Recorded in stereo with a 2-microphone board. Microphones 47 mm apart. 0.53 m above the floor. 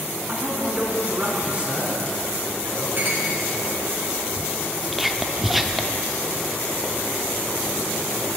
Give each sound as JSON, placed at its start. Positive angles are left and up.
{"t": 0.3, "sound": "a man speaking", "side_deg": -35, "distance_m": 5.5}
{"t": 3.0, "sound": "a clink", "side_deg": -45, "distance_m": 3.5}
{"t": 4.9, "sound": "whispering", "side_deg": 0, "distance_m": 0.8}